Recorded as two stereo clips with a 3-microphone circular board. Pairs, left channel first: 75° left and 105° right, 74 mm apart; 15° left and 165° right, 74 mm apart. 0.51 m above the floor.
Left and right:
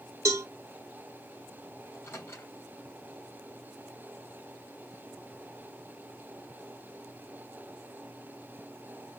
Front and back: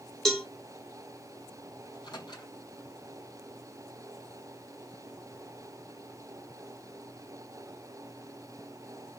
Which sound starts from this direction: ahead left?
A microwave, at 1.9 s.